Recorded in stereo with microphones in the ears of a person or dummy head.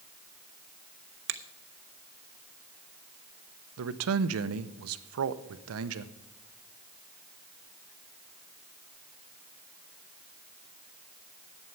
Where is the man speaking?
85° right, 0.7 m.